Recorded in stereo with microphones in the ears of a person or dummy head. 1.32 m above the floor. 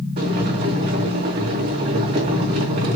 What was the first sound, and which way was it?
Boiling, 50° right (ahead or behind).